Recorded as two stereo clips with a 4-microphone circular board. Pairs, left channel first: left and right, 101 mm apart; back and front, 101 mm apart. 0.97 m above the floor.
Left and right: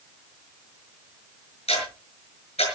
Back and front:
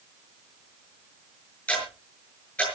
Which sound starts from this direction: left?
Ticking, at 1.7 s.